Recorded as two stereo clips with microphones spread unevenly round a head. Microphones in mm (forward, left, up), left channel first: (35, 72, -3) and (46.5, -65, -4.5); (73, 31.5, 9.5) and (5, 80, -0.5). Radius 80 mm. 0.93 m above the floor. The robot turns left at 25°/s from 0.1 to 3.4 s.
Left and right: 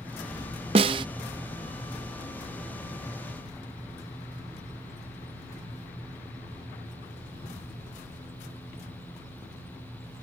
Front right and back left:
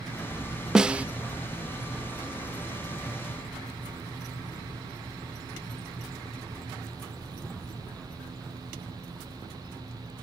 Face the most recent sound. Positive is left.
turn(degrees=160)